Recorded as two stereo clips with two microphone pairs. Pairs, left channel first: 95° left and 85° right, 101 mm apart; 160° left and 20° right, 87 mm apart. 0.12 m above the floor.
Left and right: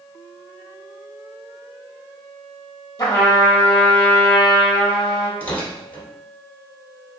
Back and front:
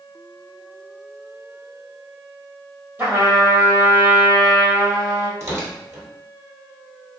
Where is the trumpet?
45° left, 1.3 m.